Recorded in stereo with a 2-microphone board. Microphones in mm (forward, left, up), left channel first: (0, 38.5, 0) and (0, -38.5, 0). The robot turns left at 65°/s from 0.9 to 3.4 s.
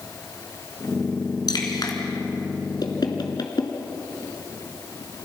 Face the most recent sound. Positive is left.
turn(degrees=60)  # may be behind; listen again after turning